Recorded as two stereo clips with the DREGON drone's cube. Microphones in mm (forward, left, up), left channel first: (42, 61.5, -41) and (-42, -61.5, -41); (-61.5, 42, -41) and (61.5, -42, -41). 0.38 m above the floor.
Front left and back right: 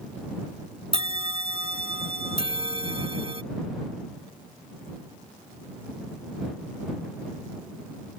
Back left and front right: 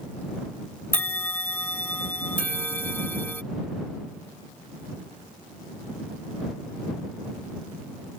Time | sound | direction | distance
0.9 | a bell | 145° right | ?